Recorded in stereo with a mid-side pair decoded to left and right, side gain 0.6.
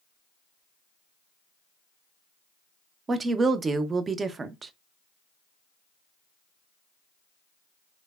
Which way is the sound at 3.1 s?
30° right.